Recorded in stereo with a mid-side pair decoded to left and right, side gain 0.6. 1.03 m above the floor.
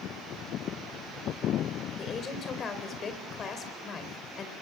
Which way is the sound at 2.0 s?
40° left.